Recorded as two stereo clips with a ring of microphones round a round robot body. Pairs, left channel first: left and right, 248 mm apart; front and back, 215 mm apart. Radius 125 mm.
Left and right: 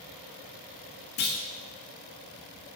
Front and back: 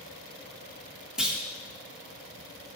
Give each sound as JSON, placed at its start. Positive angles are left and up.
{"t": 1.2, "sound": "a clunk", "azimuth_deg": 95, "distance_m": 1.3}